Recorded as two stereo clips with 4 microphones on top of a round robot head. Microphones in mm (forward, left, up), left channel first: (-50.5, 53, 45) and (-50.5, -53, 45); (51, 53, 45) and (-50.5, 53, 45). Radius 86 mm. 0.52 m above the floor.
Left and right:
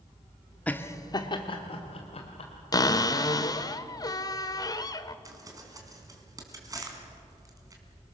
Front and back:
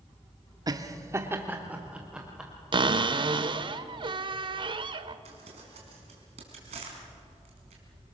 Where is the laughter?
160° left, 1.2 m; by 2.5 s 95° left, 2.5 m.